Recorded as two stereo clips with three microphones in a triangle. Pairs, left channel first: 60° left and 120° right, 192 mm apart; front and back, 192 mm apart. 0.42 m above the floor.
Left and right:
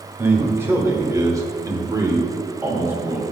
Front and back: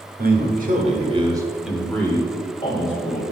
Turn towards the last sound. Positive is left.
turn(degrees=-40)